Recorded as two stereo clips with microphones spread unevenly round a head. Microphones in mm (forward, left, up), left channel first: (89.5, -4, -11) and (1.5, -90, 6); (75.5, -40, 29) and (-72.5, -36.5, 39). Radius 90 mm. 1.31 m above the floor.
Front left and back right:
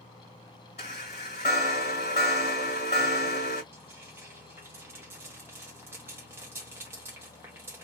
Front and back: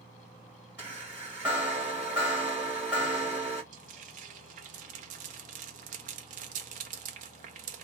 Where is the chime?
100° left, 1.7 m.